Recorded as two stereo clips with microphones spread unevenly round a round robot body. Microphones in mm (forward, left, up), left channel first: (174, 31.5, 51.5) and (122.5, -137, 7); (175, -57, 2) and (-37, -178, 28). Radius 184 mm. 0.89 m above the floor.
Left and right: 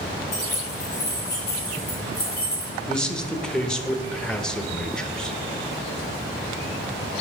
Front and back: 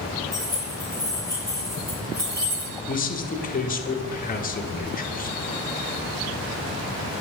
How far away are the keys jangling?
About 4.5 m.